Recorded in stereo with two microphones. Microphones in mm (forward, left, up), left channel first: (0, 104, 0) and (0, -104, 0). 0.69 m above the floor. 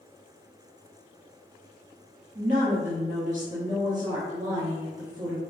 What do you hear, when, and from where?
2.4 s a woman speaking: 35° right (ahead or behind), 1.0 m